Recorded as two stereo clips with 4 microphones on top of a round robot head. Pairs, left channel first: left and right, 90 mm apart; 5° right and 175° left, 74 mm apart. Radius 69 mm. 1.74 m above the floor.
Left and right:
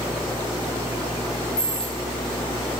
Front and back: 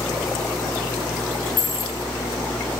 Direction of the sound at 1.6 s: 10° left.